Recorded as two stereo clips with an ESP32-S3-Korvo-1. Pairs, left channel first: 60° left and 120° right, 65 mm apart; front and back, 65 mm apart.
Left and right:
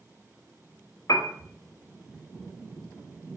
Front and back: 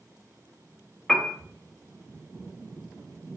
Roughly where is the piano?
Left.